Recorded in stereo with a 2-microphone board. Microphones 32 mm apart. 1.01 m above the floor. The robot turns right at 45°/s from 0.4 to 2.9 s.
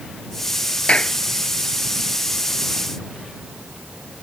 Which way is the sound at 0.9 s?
40° left (ahead or behind).